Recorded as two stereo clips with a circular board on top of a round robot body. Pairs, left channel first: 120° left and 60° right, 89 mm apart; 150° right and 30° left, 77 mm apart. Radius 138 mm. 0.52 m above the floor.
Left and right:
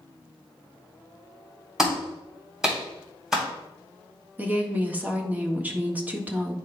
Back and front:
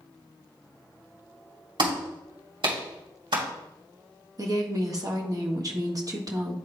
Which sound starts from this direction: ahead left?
A clap, at 1.8 s.